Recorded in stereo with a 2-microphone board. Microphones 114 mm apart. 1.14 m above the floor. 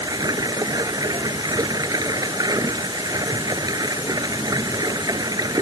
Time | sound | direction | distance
0.0 | running water | 35° right (ahead or behind) | ?